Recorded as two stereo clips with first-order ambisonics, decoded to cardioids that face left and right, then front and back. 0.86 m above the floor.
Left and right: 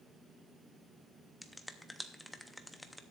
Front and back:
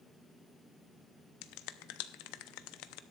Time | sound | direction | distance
1.4 | a finger snap | 5° left | 0.6 m